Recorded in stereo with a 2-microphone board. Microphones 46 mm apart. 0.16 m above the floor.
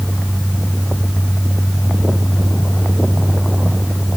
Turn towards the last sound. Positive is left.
No sound to turn to.